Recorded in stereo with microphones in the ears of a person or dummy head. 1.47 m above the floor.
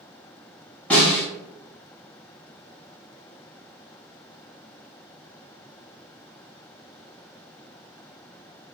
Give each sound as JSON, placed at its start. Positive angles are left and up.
{"t": 0.9, "sound": "a snare drum", "side_deg": 10, "distance_m": 1.9}